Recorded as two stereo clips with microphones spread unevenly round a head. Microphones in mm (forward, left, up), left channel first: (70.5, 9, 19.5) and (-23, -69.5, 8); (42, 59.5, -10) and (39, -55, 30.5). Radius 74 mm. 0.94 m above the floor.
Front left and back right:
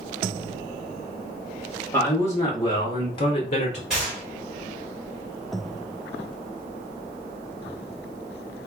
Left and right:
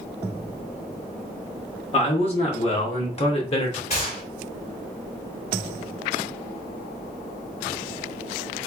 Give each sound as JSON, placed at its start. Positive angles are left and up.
{"t": 1.9, "sound": "a man speaking", "azimuth_deg": 115, "distance_m": 1.7}
{"t": 3.9, "sound": "a gunshot", "azimuth_deg": 135, "distance_m": 2.5}